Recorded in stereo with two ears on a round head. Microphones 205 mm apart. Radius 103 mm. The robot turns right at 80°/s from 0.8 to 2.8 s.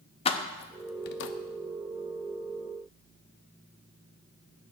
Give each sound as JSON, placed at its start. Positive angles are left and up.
{"t": 0.2, "sound": "keys jangling", "side_deg": 25, "distance_m": 0.5}